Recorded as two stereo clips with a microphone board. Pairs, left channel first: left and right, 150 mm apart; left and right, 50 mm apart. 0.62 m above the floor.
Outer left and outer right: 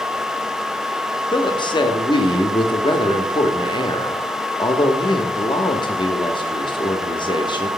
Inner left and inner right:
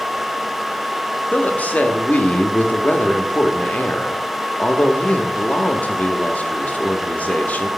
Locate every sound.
1.3 s a woman speaking: 35° left (ahead or behind), 0.7 m